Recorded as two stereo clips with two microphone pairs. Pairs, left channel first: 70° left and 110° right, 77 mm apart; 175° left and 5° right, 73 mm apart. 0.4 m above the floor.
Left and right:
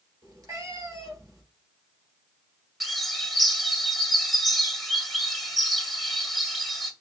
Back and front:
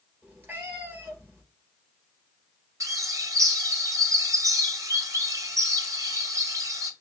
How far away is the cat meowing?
About 3 m.